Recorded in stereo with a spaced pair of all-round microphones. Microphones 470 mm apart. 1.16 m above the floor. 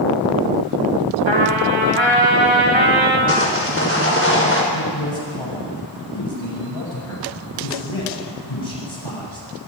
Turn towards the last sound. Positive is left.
turn(degrees=85)